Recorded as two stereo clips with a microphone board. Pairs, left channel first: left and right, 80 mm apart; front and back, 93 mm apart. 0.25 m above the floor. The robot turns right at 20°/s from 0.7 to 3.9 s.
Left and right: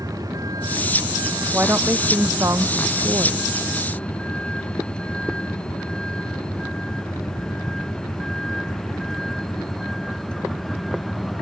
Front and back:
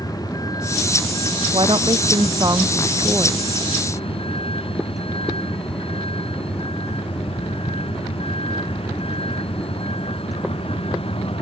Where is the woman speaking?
155° right; by 3.5 s 115° right.